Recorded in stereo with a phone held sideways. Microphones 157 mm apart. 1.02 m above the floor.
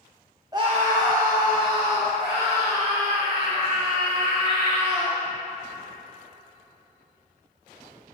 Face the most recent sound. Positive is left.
turn(degrees=-85)